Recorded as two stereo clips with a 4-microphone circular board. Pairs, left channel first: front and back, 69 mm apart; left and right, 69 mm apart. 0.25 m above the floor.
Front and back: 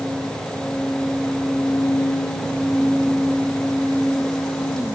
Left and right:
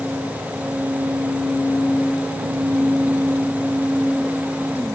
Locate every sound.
Only background noise.